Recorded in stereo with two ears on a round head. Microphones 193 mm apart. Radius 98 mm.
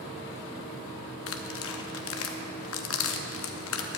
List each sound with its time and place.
1.3 s tearing paper: 65° left (ahead or behind), 0.8 m